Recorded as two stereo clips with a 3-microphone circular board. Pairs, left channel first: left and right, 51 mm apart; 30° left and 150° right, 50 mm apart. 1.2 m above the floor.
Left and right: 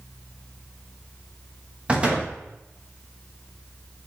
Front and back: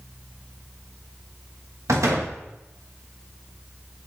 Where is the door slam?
155° right, 1.0 m.